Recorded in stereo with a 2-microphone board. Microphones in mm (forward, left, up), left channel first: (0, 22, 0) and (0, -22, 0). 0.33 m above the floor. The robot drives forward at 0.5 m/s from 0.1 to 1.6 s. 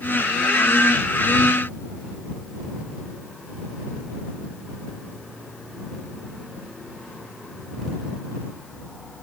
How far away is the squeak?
I don't hear a squeak.